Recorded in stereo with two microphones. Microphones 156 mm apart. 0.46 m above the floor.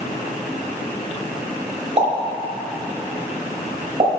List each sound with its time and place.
2.0 s a pop: 40° right (ahead or behind), 1.8 m